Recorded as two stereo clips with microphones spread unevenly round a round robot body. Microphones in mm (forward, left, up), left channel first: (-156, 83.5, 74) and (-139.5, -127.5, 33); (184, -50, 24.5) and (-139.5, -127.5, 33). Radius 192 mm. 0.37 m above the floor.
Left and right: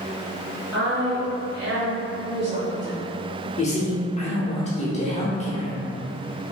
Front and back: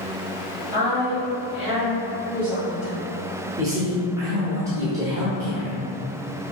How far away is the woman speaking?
About 1.8 m.